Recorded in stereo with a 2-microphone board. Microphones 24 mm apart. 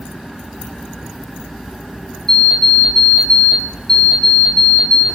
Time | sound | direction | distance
2.3 | an alarm clock | 35° left (ahead or behind) | 2.5 m